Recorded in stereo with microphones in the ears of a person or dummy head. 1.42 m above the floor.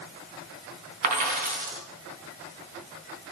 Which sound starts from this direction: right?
A dropped coin, at 1.0 s.